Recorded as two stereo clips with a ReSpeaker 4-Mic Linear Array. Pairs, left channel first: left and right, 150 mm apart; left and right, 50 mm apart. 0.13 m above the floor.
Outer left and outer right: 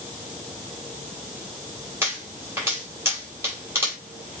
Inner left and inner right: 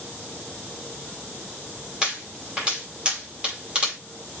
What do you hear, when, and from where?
2.0 s a pop: 15° right (ahead or behind), 5.5 m